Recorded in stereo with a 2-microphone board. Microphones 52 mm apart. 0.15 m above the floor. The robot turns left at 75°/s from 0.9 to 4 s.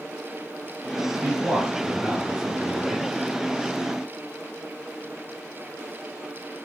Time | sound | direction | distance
1.2 | a man speaking | 20° right (ahead or behind) | 1.2 m